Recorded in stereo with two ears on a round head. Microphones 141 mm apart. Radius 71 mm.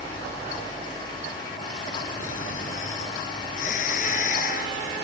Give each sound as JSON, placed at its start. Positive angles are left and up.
{"t": 2.2, "sound": "snoring", "side_deg": 55}